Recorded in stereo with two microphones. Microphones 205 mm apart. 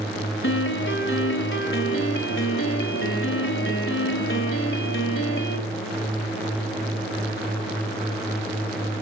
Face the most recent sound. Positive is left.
turn(degrees=75)  # may be behind; listen again after turning